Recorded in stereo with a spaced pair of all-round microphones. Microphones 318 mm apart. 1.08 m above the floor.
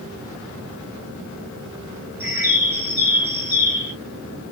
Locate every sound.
2.2 s a bird: 5° right (ahead or behind), 1.3 m